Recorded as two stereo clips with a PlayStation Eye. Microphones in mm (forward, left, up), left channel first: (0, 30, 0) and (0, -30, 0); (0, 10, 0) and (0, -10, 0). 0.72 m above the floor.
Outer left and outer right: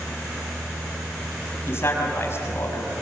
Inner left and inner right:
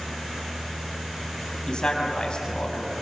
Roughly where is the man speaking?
Left.